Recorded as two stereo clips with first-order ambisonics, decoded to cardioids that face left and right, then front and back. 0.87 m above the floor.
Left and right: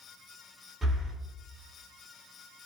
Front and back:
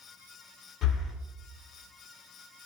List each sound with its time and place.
0.8 s breathing: 10° right, 0.6 m